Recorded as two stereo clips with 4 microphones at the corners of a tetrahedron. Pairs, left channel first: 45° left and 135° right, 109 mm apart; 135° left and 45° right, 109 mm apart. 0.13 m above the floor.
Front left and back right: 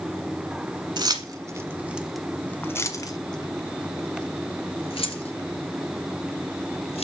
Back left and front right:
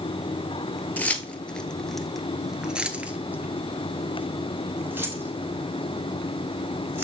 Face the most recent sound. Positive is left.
turn(degrees=25)